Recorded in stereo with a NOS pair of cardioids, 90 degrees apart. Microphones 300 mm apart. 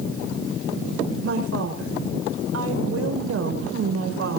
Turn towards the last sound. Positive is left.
turn(degrees=-50)